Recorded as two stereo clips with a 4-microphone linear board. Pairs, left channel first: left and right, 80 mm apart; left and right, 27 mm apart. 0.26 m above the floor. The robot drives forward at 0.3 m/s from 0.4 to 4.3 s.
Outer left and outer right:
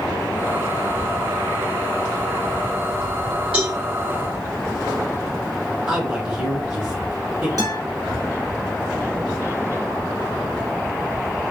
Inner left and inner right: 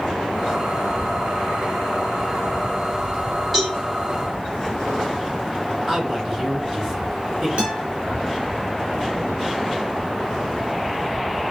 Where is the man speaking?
10° right (ahead or behind), 2.5 m.